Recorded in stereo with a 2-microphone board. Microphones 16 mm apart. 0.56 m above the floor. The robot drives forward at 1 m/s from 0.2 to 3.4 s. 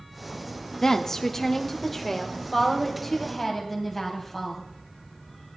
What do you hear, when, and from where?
0.8 s a woman speaking: 25° left (ahead or behind), 0.7 m; by 4.6 s 5° left (ahead or behind), 3 m